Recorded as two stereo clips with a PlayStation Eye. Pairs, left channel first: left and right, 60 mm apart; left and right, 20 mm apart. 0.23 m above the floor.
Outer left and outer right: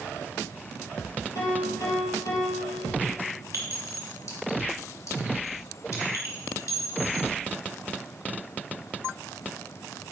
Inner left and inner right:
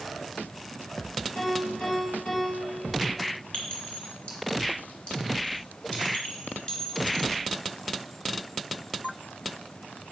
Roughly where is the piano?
Left.